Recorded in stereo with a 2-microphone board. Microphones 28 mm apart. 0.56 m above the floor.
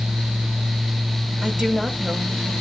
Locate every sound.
1.4 s a woman speaking: 30° right (ahead or behind), 1.5 m